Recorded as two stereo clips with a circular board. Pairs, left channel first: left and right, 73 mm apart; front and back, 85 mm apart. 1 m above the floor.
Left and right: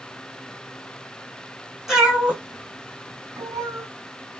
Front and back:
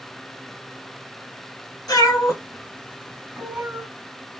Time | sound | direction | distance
1.9 | a cat meowing | 5° right | 1.2 m